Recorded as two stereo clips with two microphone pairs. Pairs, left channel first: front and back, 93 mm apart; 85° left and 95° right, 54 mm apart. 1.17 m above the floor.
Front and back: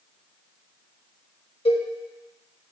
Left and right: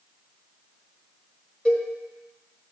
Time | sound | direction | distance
1.6 | a cowbell | 15° left | 1.3 m